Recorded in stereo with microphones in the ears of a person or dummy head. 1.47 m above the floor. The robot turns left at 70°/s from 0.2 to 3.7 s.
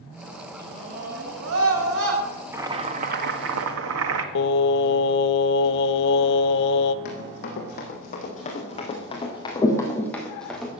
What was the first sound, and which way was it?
A scream, 15° right.